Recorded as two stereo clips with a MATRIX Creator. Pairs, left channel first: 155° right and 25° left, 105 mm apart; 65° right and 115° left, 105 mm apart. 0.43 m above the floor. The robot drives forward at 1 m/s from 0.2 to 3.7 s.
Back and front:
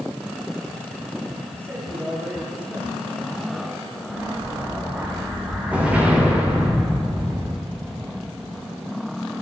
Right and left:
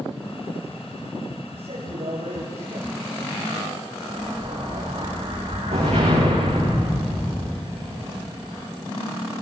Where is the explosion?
100° left, 8.5 m.